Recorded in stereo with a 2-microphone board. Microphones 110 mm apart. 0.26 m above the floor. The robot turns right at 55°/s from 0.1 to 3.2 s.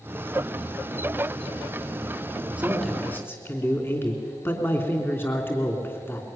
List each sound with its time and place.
2.6 s a man speaking: 15° right, 3 m; by 6.3 s 20° left, 3 m